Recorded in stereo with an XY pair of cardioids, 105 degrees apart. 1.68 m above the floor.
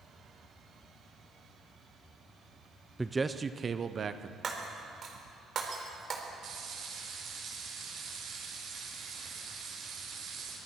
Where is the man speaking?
10° right, 0.7 m; by 4.3 s 45° right, 1.2 m.